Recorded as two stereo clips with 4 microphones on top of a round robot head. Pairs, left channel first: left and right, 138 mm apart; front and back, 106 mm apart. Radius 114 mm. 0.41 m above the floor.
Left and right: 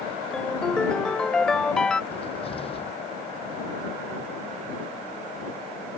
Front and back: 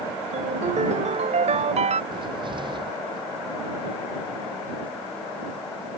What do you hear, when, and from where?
0.3 s a ringtone: 175° left
2.1 s a cupboard door: 135° left